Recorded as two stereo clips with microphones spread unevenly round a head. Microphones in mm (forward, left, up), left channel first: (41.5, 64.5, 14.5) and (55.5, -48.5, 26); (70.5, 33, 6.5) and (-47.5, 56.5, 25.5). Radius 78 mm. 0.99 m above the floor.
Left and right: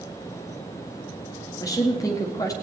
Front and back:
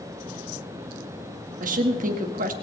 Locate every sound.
1.6 s a woman speaking: 160° left, 1.7 m